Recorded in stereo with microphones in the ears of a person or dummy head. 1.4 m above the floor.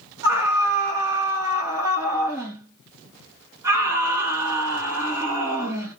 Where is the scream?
15° right (ahead or behind), 1.6 m.